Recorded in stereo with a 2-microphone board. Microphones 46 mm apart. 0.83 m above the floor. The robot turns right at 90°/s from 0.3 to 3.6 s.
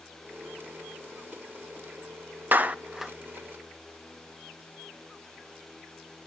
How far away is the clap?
About 0.7 m.